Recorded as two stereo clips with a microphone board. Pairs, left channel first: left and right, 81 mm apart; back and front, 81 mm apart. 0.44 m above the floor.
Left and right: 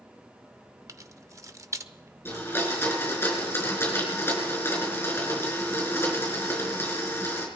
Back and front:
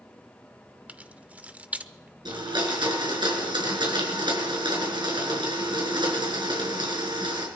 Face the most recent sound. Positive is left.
turn(degrees=25)